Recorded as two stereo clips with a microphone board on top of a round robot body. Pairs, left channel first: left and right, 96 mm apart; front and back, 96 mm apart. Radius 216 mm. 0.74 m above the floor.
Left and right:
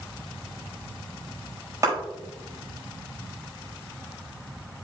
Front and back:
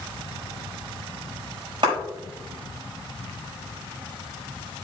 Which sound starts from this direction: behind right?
A clap, at 1.8 s.